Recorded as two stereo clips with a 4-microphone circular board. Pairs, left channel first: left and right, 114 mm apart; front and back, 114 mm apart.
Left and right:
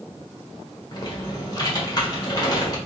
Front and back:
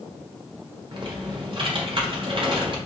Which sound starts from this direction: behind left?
Typing on a keyboard, at 0.9 s.